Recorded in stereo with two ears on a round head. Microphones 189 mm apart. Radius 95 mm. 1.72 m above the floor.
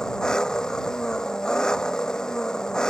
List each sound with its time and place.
0.0 s an engine running: 5° left (ahead or behind)